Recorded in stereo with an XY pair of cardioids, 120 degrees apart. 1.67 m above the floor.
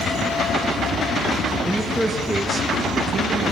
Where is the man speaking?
10° left, 2.5 m; by 3.5 s 55° right, 2.5 m.